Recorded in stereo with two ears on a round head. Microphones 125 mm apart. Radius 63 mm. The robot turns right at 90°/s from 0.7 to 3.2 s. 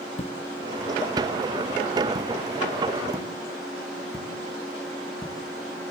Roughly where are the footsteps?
Left.